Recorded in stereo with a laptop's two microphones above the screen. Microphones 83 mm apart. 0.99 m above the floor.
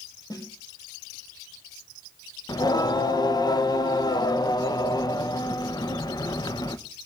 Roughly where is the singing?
Left.